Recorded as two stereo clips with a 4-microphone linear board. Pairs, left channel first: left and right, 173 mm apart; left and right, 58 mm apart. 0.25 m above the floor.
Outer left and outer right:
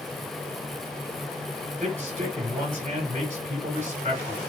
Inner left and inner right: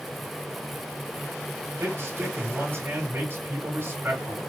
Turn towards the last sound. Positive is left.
turn(degrees=-40)  # may be behind; listen again after turning